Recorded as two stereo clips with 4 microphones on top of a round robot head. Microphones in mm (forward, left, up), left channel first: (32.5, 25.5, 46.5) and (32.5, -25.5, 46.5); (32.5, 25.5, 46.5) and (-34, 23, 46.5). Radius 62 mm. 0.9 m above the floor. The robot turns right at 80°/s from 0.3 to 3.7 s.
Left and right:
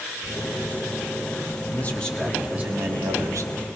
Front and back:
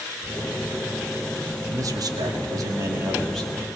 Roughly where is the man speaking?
Behind left.